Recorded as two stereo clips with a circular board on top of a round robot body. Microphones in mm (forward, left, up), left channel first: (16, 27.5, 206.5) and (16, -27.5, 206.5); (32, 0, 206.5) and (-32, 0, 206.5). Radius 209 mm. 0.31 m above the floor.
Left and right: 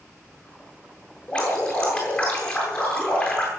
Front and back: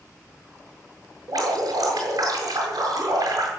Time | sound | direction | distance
1.3 | dripping | 155° left | 8.5 m